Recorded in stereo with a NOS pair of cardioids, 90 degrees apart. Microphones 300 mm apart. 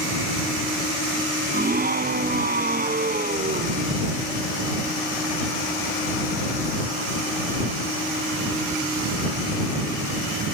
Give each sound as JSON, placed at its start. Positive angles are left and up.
{"t": 1.5, "sound": "a scream", "azimuth_deg": -30}